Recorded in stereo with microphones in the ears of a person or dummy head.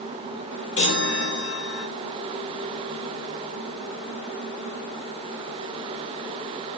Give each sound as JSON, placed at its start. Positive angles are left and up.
{"t": 0.8, "sound": "a chime", "side_deg": 70, "distance_m": 1.2}